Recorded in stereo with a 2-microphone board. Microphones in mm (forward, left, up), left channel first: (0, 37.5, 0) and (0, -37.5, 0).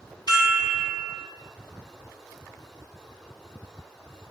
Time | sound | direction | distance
0.3 | a chime | 70° left (ahead or behind) | 0.7 m